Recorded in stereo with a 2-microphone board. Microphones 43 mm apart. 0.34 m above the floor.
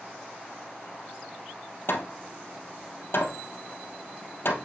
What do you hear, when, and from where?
1.9 s hammering: 70° left (ahead or behind), 2.5 m